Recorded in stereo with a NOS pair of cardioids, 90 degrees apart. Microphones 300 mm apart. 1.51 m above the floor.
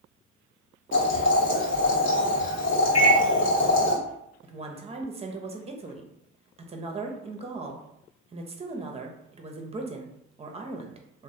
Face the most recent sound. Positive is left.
turn(degrees=-20)